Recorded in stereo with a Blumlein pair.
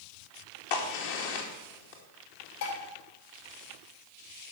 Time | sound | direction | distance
0.7 | a crack | 50° left | 2.5 m
2.6 | dishes clattering | 55° left | 3 m